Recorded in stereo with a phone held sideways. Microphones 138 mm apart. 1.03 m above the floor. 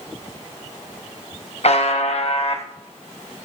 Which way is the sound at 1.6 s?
55° left (ahead or behind).